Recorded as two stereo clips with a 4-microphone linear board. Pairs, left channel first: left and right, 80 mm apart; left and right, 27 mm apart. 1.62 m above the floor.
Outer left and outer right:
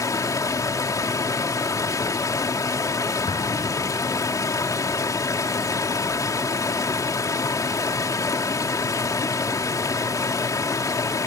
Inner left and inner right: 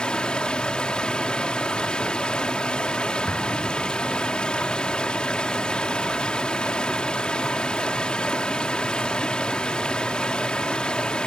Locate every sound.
0.0 s running water: 40° left (ahead or behind)
3.3 s an explosion: 75° left (ahead or behind)